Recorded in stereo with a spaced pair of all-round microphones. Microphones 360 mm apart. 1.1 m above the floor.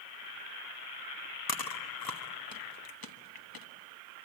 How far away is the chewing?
About 1.1 m.